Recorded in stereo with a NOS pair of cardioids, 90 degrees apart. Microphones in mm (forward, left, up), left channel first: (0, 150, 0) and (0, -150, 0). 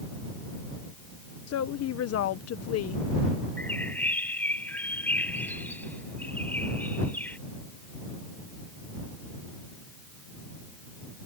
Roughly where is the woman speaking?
Ahead left.